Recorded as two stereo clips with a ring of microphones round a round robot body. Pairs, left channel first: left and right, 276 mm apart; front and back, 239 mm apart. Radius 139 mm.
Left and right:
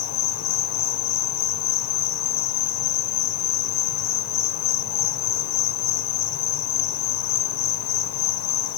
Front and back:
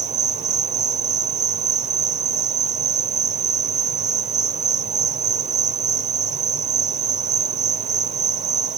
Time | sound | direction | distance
0.0 | an insect | 120° left | 1.3 m